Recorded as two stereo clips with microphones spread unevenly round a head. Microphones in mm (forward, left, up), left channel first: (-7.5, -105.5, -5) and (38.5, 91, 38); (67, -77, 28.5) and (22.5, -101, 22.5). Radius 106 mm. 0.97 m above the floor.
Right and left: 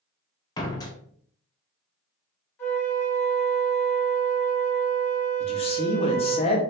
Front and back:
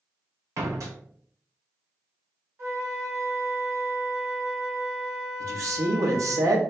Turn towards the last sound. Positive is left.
turn(degrees=-165)